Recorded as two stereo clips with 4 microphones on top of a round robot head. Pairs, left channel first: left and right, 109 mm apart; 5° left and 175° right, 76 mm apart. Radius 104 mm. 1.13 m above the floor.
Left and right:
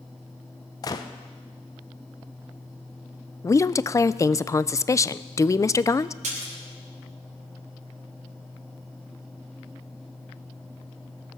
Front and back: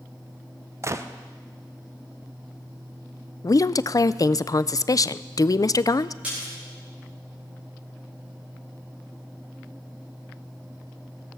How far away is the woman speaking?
About 0.5 m.